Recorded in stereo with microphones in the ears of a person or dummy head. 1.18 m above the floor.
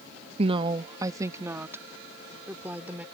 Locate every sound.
0.4 s a woman speaking: 35° right (ahead or behind); by 3.0 s 10° right (ahead or behind)